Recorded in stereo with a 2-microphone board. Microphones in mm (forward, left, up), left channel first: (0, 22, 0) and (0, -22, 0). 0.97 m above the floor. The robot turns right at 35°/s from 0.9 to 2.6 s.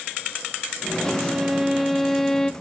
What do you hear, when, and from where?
1.0 s a violin: 30° right, 0.5 m; by 2.5 s 20° left, 0.5 m